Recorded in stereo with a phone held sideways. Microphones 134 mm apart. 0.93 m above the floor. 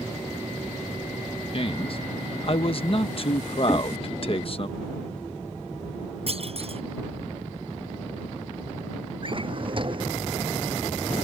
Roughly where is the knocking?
Centre.